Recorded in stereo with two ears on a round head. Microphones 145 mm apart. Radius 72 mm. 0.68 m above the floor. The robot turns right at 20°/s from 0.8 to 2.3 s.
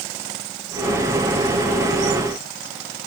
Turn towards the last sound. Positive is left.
No sound to turn to.